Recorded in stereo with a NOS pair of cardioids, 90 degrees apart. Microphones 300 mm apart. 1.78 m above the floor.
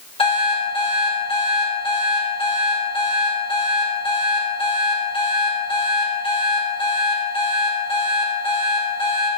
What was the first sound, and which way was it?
An alarm clock, 20° left.